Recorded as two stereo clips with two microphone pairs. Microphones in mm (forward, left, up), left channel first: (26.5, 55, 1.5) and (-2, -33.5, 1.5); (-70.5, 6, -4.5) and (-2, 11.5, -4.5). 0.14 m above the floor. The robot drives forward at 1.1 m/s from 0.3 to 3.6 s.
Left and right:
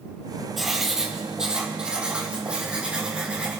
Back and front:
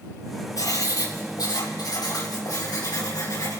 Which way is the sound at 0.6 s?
165° left.